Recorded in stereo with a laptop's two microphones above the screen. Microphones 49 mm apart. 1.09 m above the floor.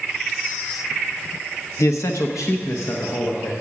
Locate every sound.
1.8 s a man speaking: 70° left (ahead or behind), 0.8 m; by 3.5 s 55° left (ahead or behind), 1.2 m